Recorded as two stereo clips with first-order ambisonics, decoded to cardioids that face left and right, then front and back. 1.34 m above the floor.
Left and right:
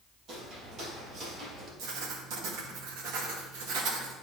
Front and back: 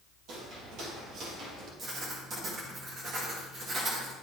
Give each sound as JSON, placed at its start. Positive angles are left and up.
{"t": 0.3, "sound": "footsteps", "azimuth_deg": -140, "distance_m": 2.5}
{"t": 1.8, "sound": "writing", "azimuth_deg": -115, "distance_m": 1.4}